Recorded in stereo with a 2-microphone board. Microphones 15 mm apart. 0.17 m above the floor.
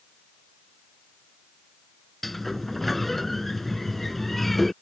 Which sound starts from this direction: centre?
A sliding door, at 2.2 s.